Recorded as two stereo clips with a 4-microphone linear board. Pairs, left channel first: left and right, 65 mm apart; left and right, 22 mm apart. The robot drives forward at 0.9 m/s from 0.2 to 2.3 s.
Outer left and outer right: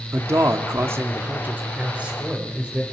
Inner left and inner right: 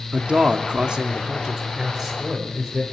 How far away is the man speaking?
About 0.8 m.